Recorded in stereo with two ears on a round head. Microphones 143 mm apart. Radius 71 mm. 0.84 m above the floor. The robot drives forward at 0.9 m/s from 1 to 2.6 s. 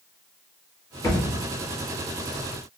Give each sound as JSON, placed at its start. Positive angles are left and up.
{"t": 1.0, "sound": "a thud", "side_deg": 25, "distance_m": 1.7}